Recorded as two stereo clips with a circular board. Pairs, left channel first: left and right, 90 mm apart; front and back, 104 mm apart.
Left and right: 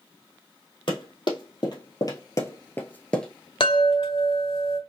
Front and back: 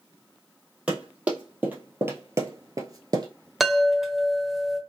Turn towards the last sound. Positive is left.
turn(degrees=90)